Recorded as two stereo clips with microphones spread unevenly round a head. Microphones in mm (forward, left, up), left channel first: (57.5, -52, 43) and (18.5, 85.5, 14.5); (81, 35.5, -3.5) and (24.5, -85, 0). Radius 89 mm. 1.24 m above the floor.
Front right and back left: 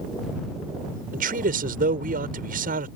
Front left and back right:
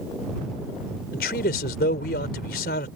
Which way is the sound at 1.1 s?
90° left.